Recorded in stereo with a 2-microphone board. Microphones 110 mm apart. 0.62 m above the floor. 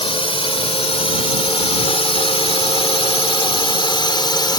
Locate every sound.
0.0 s a drone: 55° left (ahead or behind); by 4.6 s 40° left (ahead or behind)